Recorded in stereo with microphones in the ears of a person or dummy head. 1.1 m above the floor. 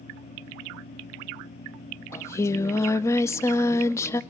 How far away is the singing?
About 0.7 m.